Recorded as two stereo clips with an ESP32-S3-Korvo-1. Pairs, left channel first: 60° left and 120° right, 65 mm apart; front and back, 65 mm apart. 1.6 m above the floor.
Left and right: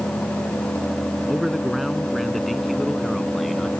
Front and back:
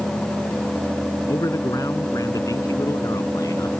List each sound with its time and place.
1.3 s a man speaking: 30° right